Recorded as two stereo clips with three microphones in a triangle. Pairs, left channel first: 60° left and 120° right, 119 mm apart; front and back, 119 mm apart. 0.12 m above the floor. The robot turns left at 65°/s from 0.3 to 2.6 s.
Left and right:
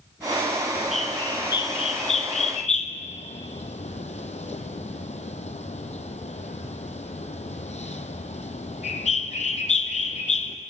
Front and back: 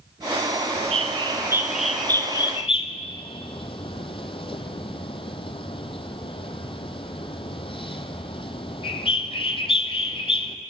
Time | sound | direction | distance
0.7 | a bird | 165° left | 0.7 m